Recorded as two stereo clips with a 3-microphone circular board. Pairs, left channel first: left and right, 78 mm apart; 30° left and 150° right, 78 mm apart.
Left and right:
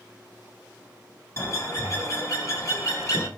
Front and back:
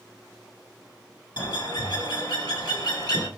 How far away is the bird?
About 1.9 m.